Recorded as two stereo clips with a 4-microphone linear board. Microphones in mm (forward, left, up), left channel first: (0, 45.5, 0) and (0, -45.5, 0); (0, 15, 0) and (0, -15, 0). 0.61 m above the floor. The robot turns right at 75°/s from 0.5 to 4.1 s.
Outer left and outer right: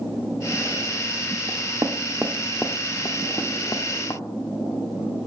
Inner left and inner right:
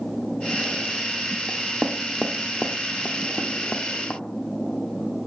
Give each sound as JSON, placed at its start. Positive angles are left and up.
{"t": 1.5, "sound": "knocking", "side_deg": -55, "distance_m": 0.9}